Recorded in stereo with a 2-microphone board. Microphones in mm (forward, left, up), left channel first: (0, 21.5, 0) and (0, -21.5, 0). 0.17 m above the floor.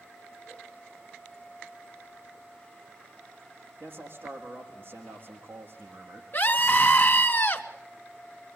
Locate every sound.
3.8 s a man speaking: 50° right (ahead or behind), 6.5 m
6.3 s a scream: 40° left (ahead or behind), 1.6 m